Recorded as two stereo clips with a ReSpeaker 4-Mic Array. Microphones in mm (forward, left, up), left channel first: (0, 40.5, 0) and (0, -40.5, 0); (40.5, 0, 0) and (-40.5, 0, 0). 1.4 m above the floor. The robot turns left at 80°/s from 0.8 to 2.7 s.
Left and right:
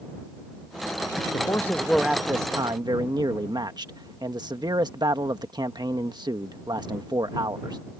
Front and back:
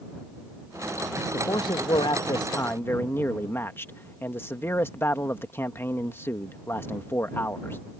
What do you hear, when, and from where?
1.3 s a man speaking: 50° left; by 7.8 s 60° right